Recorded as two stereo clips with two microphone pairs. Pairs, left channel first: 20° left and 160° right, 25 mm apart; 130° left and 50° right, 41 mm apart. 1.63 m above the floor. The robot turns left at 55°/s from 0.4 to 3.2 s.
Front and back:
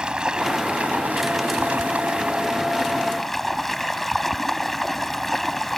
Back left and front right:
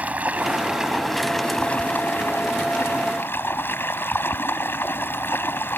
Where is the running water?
100° right; by 5.8 s 105° left.